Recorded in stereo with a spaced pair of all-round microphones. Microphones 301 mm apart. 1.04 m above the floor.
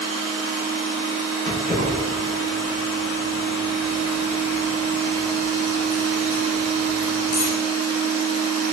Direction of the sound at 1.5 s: 30° left (ahead or behind).